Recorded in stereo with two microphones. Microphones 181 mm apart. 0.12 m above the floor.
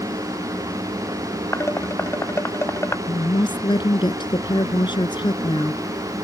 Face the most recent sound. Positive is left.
turn(degrees=25)  # may be behind; listen again after turning